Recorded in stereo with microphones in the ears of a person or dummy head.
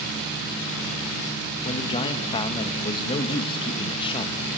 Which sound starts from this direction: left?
A man speaking, at 1.6 s.